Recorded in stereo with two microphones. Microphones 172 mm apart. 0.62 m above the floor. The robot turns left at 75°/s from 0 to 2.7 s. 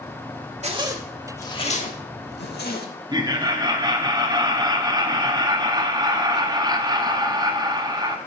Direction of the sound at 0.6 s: 40° right (ahead or behind).